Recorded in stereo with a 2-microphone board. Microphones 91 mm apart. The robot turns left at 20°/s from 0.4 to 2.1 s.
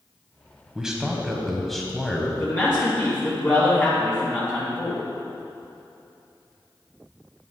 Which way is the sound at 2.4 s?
30° left (ahead or behind).